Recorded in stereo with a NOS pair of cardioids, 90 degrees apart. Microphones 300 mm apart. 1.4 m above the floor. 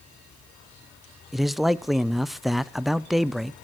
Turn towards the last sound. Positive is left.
turn(degrees=0)